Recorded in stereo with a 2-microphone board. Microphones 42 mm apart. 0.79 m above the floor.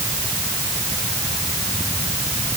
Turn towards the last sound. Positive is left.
No sound to turn to.